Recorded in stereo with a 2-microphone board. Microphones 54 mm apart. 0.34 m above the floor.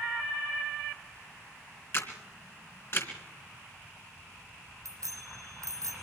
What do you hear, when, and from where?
1.9 s a camera shutter: 50° left (ahead or behind), 2.5 m
4.8 s a bicycle bell: 75° right (ahead or behind), 9 m